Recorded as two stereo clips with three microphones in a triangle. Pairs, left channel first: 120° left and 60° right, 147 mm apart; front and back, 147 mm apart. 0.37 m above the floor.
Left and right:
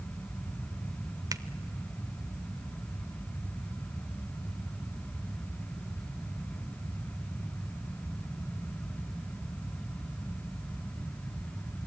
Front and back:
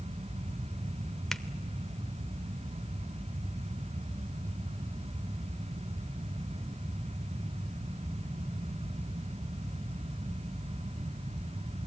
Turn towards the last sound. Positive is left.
turn(degrees=-85)